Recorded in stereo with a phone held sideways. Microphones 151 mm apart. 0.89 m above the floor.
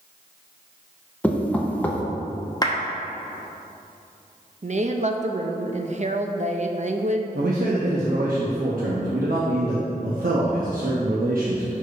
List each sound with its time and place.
1.2 s knocking: 10° left (ahead or behind), 0.7 m
2.6 s a clap: 25° left (ahead or behind), 0.9 m
4.6 s a woman speaking: 50° right (ahead or behind), 0.6 m
7.3 s a man speaking: 75° right (ahead or behind), 0.9 m